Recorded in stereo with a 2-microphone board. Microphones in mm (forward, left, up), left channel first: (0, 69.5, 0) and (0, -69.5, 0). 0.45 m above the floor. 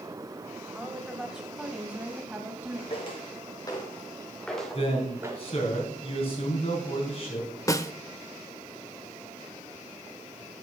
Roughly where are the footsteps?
Left.